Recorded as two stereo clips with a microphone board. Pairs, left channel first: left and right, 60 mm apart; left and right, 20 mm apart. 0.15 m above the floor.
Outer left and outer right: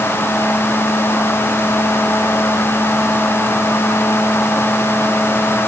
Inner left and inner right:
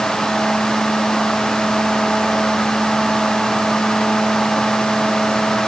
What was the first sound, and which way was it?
Only background noise.